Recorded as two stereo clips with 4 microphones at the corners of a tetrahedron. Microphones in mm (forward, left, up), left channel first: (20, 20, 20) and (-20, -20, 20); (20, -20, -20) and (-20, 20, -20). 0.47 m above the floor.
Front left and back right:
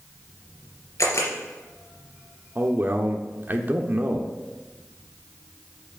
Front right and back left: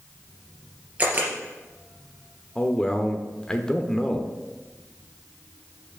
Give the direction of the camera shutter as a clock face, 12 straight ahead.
10 o'clock.